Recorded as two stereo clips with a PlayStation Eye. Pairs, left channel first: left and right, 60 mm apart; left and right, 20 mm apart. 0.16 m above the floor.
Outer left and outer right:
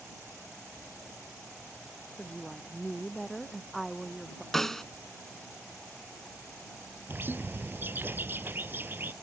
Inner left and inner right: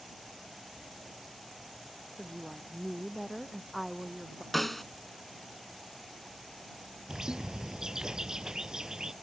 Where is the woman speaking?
Centre (ahead or behind).